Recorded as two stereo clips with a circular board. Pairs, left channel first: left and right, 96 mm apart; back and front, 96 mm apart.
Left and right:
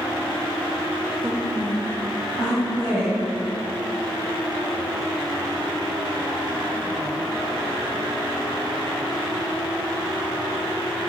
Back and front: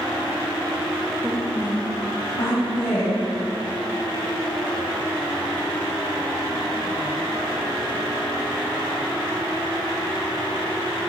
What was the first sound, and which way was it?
A woman speaking, 50° right.